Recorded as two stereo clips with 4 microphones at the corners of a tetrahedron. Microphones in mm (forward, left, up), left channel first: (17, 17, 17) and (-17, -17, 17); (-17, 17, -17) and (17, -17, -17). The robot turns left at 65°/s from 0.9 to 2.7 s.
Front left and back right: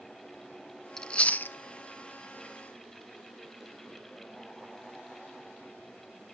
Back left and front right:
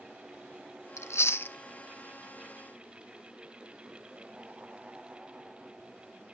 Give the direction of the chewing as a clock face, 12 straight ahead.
8 o'clock.